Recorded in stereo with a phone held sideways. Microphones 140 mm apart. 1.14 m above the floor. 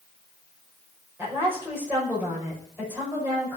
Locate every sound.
1.2 s a woman speaking: 15° right (ahead or behind), 6 m